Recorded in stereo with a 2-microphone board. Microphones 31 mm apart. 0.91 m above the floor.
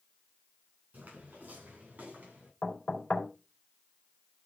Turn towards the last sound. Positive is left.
turn(degrees=45)  # may be behind; listen again after turning